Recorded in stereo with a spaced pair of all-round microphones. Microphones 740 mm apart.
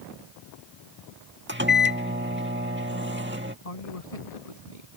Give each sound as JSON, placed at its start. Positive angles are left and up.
{"t": 1.5, "sound": "a microwave", "side_deg": -15}
{"t": 3.6, "sound": "a man speaking", "side_deg": 55}